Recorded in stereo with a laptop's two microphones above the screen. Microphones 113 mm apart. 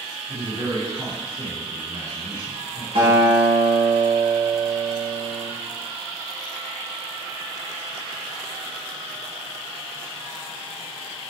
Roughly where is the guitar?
Right.